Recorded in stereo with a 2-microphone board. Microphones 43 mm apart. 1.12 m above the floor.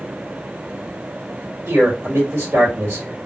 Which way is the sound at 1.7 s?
70° right (ahead or behind).